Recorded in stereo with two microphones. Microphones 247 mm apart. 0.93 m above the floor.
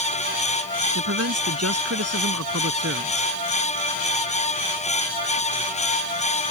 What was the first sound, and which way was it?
A man speaking, 85° right.